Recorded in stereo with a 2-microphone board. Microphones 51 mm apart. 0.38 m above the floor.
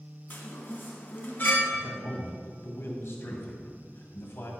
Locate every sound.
0.3 s a chime: 45° left (ahead or behind), 1.9 m
1.7 s a man speaking: 60° left (ahead or behind), 2 m